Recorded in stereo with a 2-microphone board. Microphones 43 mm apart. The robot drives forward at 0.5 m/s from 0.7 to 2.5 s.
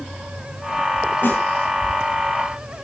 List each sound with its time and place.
1.2 s a snare drum: 65° left (ahead or behind), 9.5 m